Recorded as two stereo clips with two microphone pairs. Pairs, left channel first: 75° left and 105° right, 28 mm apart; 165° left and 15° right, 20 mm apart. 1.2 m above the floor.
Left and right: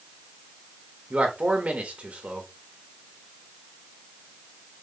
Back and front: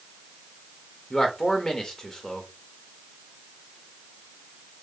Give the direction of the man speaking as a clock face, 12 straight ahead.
5 o'clock.